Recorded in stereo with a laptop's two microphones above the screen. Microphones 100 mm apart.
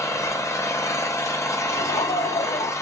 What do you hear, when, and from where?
0.0 s an engine running: 30° left (ahead or behind), 0.7 m
1.7 s laughter: 75° left (ahead or behind), 2.5 m